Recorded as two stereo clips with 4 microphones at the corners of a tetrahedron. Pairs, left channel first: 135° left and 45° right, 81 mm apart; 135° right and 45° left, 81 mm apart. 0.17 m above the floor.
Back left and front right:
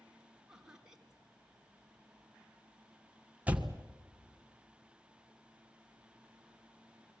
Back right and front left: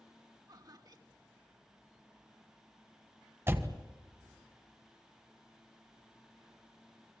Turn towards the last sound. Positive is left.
turn(degrees=10)